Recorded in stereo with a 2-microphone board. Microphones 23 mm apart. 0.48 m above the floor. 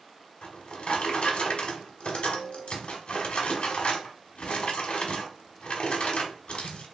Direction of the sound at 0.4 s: 75° left (ahead or behind).